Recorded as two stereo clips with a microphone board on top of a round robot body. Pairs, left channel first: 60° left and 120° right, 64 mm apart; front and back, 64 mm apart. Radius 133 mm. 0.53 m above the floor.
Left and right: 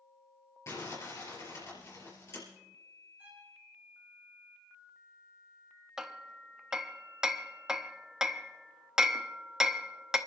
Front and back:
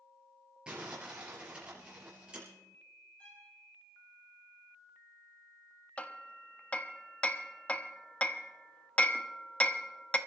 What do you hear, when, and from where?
0.7 s crumpling: 105° left, 6 m
3.2 s a violin: 60° right, 4.5 m
6.0 s hammering: 50° right, 1.1 m